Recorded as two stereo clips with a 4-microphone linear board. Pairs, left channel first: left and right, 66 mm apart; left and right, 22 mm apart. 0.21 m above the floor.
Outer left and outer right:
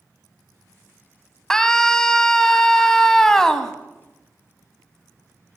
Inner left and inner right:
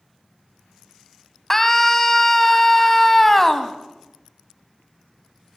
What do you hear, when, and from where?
1.5 s a scream: 10° left (ahead or behind), 1.3 m